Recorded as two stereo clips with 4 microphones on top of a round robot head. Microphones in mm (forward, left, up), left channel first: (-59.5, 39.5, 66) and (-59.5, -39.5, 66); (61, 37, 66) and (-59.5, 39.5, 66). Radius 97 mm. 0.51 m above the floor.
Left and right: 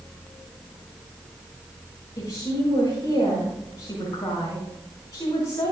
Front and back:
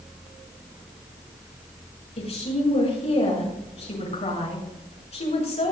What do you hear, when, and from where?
2.2 s a woman speaking: 30° left, 6.5 m